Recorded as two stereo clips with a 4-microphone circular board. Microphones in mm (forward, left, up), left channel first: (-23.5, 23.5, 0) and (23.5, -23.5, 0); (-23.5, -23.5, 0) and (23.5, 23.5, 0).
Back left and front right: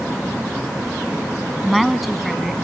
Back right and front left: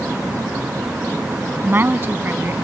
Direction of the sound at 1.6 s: 45° left.